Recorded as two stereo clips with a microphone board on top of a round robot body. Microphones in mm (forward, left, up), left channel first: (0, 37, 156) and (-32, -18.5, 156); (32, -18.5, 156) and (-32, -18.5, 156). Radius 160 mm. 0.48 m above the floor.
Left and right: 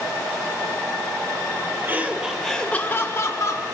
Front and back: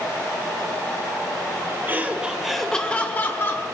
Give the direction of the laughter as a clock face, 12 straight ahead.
5 o'clock.